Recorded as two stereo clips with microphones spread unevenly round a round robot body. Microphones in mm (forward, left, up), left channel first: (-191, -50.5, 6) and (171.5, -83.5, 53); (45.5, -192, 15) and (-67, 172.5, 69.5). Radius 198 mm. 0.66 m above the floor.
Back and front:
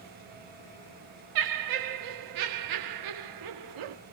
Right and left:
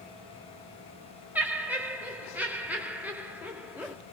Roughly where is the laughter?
Ahead.